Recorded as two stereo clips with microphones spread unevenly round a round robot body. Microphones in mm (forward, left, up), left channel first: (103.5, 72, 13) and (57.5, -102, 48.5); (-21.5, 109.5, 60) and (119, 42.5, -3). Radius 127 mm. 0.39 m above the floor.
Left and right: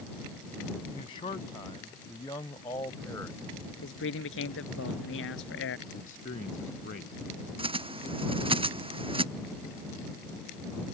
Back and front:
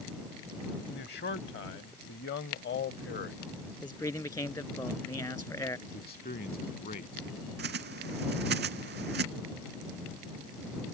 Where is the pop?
No pop in this recording.